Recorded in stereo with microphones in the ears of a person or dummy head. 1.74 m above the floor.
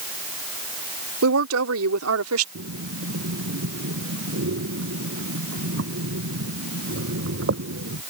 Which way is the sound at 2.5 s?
70° right (ahead or behind).